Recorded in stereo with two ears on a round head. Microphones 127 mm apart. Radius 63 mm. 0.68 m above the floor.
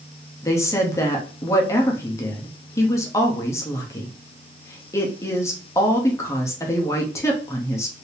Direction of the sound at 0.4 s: 20° left (ahead or behind).